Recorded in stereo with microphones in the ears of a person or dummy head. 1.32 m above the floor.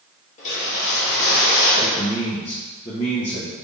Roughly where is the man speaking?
Left.